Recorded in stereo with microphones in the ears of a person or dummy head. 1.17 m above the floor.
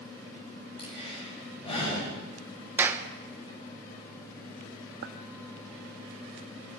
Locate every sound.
0.8 s breathing: 30° left (ahead or behind), 5.5 m
2.8 s a clap: 15° right (ahead or behind), 0.8 m
5.0 s a clink: 60° right (ahead or behind), 0.9 m